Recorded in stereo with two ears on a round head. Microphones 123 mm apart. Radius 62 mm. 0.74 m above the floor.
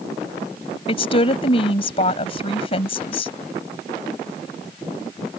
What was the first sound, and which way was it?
A woman speaking, 45° left (ahead or behind).